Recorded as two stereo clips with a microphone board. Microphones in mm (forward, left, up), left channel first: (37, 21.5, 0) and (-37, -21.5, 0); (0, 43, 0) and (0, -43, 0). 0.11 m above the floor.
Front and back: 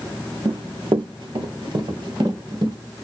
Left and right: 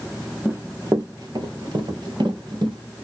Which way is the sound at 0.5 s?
155° right.